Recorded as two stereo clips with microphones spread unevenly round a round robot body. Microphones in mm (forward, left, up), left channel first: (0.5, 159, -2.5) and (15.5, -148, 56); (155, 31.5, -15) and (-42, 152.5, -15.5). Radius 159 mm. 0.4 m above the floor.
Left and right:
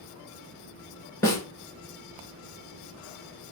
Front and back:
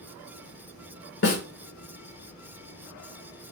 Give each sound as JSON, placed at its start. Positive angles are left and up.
{"t": 1.2, "sound": "a snare drum", "azimuth_deg": 10, "distance_m": 0.9}